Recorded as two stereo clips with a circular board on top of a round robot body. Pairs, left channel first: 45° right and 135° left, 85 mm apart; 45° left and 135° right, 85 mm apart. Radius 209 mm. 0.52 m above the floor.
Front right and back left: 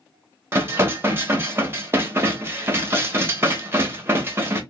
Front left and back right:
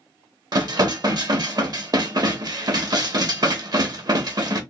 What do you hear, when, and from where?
0.5 s dishes clattering: 165° right, 1.0 m